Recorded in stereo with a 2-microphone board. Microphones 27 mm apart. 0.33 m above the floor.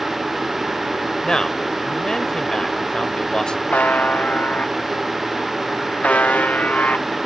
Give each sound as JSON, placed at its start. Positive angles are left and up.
{"t": 1.2, "sound": "a man speaking", "side_deg": 30}
{"t": 3.7, "sound": "a buzzer", "side_deg": 80}